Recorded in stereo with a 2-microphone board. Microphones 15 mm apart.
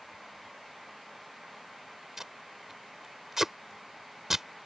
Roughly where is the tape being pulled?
Right.